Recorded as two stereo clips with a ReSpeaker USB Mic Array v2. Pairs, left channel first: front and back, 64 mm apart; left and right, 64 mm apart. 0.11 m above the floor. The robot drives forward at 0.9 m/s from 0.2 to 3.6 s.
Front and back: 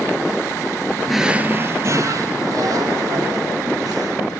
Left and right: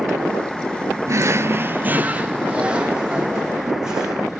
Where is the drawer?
85° right, 0.6 m; by 4.2 s 170° right, 2.5 m.